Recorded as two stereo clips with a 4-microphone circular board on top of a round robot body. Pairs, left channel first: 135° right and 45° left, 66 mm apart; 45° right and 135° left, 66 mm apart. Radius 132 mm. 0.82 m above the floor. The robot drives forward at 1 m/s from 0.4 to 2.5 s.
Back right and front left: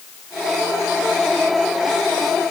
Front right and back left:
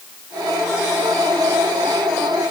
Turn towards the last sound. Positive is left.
No sound to turn to.